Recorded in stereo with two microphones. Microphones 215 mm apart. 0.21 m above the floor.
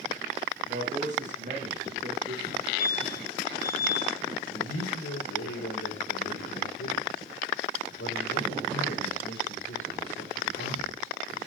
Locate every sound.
0.7 s a man speaking: 35° right (ahead or behind), 9 m
2.5 s a fire alarm: centre (ahead or behind), 7 m
4.5 s a man speaking: 75° left (ahead or behind), 6 m